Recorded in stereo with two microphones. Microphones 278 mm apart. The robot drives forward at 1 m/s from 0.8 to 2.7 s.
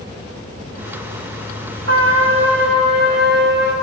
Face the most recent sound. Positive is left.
turn(degrees=-40)  # may be behind; listen again after turning